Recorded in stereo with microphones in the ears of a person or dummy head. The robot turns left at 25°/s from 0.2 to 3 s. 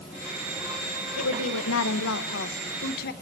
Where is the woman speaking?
100° left, 1.3 m; by 3.1 s 55° left, 1.3 m.